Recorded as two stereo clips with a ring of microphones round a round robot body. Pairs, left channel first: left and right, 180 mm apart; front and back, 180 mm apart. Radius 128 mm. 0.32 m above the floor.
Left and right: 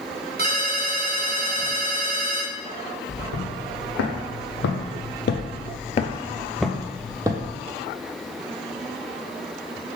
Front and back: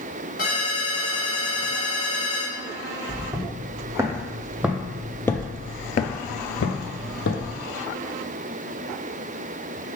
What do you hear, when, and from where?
0.4 s a ringtone: 55° right, 1.6 m
3.1 s footsteps: 110° left, 1.5 m; by 7.6 s 25° right, 0.9 m